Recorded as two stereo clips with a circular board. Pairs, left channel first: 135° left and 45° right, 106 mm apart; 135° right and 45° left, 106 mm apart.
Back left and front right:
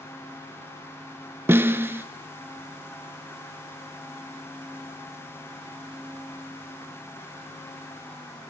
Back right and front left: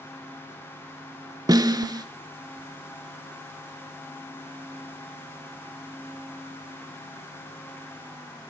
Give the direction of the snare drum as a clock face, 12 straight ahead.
12 o'clock.